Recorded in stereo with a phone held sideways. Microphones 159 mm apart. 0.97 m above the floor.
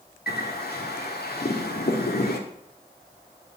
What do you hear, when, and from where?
0.3 s a bird: 85° left, 1.4 m